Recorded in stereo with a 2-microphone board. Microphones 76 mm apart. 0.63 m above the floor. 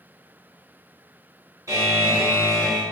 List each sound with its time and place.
1.7 s a buzzer: 45° right (ahead or behind), 1.3 m